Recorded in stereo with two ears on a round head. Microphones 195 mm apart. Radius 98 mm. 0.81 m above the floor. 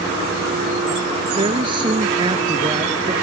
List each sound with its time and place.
1.4 s a woman speaking: 25° right (ahead or behind); by 3.1 s 20° right (ahead or behind)